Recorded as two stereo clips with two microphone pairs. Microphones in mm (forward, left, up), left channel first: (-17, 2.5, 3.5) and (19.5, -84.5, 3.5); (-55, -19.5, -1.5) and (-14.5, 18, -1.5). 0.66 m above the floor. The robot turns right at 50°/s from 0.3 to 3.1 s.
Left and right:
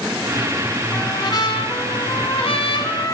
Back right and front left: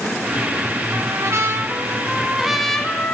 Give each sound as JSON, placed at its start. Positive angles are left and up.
{"t": 0.9, "sound": "a trumpet", "azimuth_deg": 50, "distance_m": 1.3}